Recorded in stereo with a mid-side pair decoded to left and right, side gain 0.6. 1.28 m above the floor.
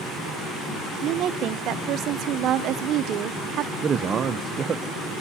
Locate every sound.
1.0 s a woman speaking: 60° right, 0.7 m
3.8 s a man speaking: 35° right, 0.7 m